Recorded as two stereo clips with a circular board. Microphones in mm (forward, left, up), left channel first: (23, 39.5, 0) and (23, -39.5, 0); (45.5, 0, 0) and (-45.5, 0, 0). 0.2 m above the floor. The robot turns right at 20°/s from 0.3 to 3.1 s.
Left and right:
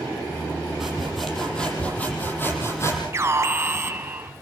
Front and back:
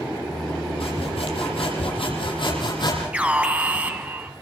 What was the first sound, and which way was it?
Sawing, 5° right.